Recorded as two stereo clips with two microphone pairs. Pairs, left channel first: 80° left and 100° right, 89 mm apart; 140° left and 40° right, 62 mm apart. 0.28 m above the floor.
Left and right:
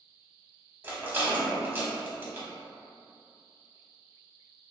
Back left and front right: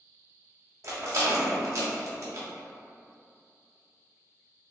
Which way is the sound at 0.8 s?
40° right.